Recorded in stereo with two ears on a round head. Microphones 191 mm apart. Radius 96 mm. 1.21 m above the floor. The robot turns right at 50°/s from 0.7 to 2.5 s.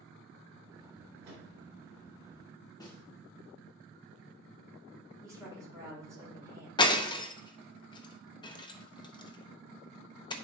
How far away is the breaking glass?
About 0.7 m.